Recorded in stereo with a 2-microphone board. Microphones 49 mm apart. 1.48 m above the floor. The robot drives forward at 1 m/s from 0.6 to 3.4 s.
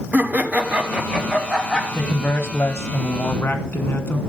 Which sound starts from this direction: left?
A man speaking, at 1.9 s.